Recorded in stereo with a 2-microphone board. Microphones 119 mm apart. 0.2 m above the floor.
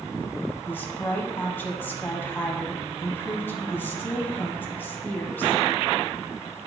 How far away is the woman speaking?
About 1.0 m.